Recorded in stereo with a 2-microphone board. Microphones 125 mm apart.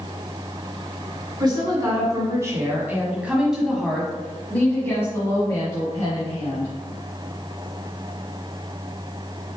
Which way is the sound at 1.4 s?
35° right (ahead or behind).